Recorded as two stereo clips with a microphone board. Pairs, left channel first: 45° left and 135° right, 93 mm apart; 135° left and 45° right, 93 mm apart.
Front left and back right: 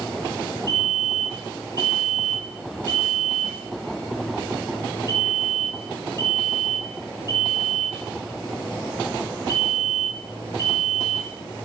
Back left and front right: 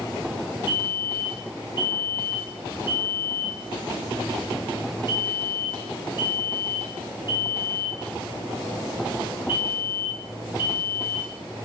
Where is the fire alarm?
95° left, 7 m.